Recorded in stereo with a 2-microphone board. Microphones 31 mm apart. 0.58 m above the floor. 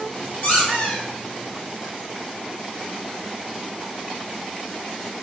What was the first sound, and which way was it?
A squeak, 60° left (ahead or behind).